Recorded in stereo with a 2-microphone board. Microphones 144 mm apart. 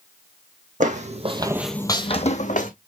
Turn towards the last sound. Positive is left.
turn(degrees=65)  # may be behind; listen again after turning